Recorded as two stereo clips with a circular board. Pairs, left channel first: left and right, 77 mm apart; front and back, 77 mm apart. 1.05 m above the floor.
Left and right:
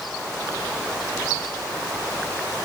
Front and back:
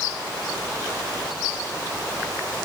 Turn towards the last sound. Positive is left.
No sound to turn to.